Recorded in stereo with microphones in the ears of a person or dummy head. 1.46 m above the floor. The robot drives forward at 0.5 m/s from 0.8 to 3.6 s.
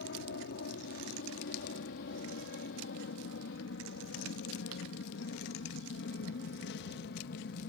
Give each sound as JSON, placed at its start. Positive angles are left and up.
{"t": 0.0, "sound": "an aircraft", "side_deg": 60}